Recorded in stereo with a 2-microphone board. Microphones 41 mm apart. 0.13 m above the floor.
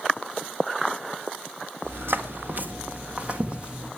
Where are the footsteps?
70° right (ahead or behind), 1.7 m; by 3.9 s 20° right (ahead or behind), 3 m.